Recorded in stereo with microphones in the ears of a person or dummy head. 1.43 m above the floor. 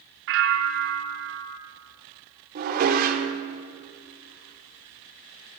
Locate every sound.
0.3 s a bell: 70° right (ahead or behind), 2.5 m
2.5 s dishes clattering: 50° right (ahead or behind), 2.5 m